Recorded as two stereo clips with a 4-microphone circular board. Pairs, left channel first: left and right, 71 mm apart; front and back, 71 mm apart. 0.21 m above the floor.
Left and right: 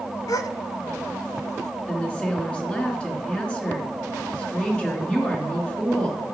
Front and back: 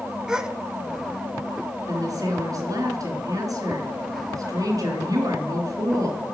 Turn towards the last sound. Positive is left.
turn(degrees=160)